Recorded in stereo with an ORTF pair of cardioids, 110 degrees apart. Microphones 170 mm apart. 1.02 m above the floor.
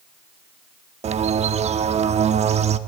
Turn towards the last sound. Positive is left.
turn(degrees=-40)